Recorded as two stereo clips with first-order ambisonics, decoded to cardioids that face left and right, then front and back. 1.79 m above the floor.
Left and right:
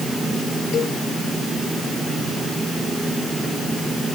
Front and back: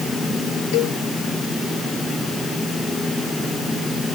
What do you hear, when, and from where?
0.7 s a cowbell: 30° left